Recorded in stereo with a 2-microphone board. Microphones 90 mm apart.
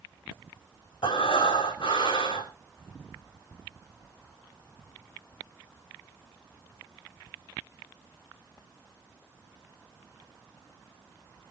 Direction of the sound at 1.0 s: 75° left (ahead or behind).